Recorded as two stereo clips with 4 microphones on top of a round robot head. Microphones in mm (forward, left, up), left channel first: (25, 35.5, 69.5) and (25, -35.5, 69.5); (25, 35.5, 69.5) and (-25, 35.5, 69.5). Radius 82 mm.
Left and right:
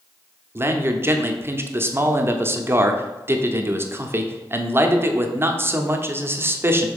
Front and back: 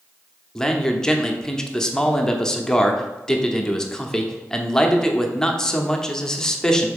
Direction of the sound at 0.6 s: 70° right.